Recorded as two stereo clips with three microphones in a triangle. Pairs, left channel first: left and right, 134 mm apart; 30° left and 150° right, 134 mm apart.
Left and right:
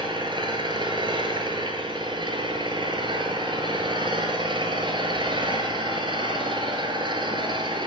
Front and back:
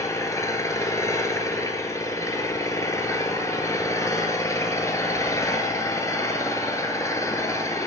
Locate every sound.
0.0 s an engine running: 40° right, 1.0 m